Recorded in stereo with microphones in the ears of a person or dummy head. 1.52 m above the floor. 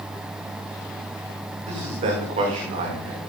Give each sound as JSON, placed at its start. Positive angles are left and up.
{"t": 1.6, "sound": "a man speaking", "side_deg": -40, "distance_m": 5.5}